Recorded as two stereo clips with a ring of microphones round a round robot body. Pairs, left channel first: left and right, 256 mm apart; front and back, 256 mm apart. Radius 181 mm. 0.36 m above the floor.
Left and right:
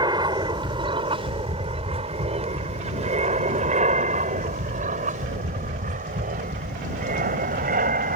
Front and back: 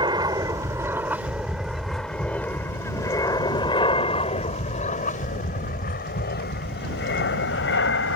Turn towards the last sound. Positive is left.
turn(degrees=-35)